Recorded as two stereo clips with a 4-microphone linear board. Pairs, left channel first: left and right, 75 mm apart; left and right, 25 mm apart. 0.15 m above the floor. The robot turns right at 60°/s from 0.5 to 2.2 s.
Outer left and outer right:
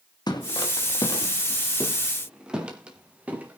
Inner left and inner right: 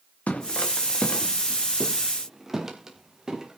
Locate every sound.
0.3 s footsteps: 70° left (ahead or behind), 3 m; by 3.6 s 20° right (ahead or behind), 4 m